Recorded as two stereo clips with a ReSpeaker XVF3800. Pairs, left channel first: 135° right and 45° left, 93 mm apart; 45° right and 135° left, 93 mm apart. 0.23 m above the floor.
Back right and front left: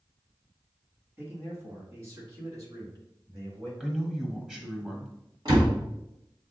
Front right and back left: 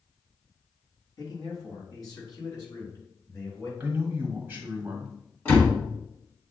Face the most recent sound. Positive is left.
turn(degrees=20)